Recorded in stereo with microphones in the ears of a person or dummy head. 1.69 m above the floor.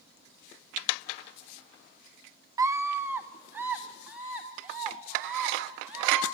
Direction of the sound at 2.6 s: 25° right (ahead or behind).